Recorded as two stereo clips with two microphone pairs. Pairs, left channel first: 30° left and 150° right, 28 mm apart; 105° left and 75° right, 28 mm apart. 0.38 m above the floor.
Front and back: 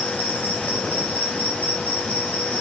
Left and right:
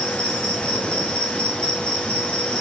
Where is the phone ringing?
No phone ringing in this recording.